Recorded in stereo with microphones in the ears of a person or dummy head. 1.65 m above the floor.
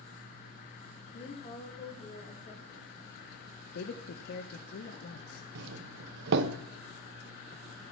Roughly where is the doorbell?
Right.